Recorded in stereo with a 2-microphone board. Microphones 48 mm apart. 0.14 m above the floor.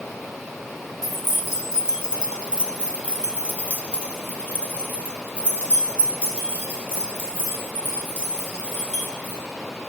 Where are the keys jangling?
5° right (ahead or behind), 1.2 m; by 9.4 s 30° right (ahead or behind), 4 m.